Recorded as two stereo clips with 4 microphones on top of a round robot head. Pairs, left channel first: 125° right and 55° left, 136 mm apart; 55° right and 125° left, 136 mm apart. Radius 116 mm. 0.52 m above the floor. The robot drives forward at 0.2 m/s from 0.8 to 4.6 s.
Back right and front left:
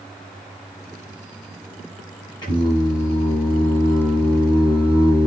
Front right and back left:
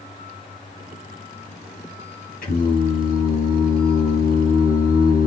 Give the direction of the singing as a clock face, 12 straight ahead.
2 o'clock.